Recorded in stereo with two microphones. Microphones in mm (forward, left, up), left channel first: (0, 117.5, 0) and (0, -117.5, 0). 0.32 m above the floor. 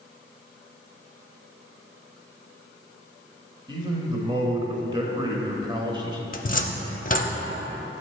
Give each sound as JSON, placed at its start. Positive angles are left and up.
{"t": 3.7, "sound": "a man speaking", "side_deg": -20, "distance_m": 0.9}
{"t": 6.3, "sound": "a cupboard door", "side_deg": 35, "distance_m": 0.5}